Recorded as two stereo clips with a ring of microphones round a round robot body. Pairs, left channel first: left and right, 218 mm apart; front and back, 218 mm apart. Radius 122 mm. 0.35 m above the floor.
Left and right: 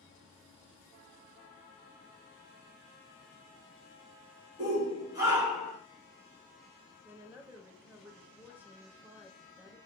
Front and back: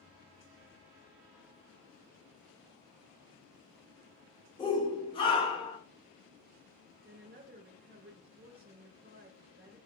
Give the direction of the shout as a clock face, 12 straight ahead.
2 o'clock.